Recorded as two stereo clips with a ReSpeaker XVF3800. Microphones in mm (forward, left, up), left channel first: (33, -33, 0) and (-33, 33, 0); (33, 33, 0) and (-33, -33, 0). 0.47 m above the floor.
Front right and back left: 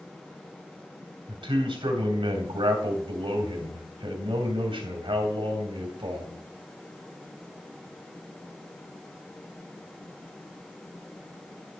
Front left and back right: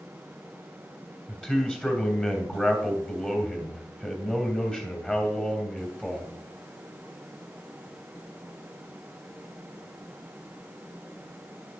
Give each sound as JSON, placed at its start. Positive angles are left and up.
{"t": 1.3, "sound": "a man speaking", "azimuth_deg": 125, "distance_m": 3.0}